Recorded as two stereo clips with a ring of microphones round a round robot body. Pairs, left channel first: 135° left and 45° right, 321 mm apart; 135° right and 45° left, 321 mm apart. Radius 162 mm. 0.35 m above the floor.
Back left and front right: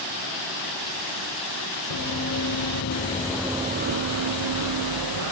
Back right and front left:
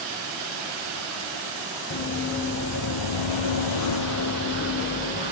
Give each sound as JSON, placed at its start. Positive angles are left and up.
{"t": 1.9, "sound": "running footsteps", "azimuth_deg": 160, "distance_m": 1.6}